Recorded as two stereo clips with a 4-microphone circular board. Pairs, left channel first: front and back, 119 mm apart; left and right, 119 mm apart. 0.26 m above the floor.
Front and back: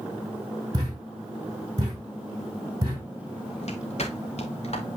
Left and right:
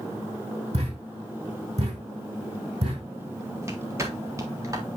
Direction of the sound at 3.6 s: 25° right.